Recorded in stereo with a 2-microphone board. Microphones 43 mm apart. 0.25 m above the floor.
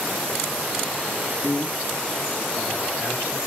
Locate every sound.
1.4 s a man speaking: 70° left (ahead or behind), 3.5 m; by 3.4 s 75° left (ahead or behind), 4.5 m